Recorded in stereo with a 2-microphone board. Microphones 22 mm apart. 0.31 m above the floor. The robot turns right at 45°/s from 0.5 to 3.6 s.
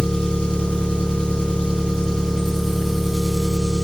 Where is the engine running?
70° left, 1.9 m; by 3.8 s 150° right, 1.9 m.